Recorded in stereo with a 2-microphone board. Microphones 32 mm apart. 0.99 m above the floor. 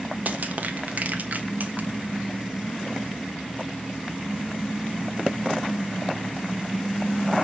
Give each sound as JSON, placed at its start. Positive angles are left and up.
{"t": 0.2, "sound": "crushing", "side_deg": -55, "distance_m": 1.3}